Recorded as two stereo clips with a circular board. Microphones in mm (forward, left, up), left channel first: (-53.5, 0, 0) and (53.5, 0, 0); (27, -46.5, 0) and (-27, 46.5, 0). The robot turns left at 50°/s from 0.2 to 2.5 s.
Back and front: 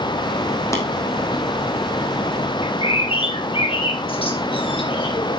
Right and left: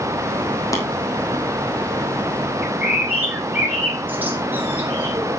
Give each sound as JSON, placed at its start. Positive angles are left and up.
{"t": 0.7, "sound": "tapping", "azimuth_deg": -120, "distance_m": 2.5}
{"t": 2.6, "sound": "a bird", "azimuth_deg": -170, "distance_m": 2.5}